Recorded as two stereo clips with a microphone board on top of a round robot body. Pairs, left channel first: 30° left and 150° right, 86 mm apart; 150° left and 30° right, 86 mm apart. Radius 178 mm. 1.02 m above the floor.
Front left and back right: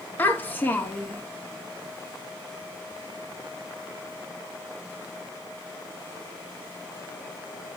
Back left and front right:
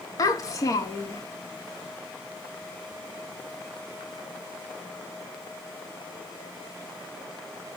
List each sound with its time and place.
0.2 s a child speaking: 100° left, 0.7 m